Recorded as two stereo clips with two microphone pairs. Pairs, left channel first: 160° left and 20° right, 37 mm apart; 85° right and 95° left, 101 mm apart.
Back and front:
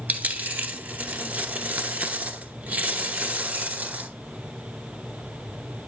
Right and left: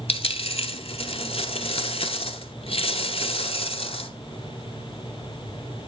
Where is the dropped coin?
65° right, 0.8 m.